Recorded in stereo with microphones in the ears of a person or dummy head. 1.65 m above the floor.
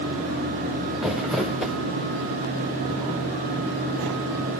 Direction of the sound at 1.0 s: Centre (ahead or behind).